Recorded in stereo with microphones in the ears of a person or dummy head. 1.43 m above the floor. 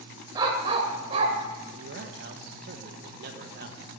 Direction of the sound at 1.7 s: 50° right (ahead or behind).